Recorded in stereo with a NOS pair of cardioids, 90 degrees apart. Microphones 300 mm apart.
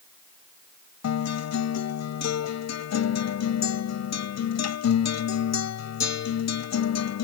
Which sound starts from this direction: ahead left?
A guitar, at 1.0 s.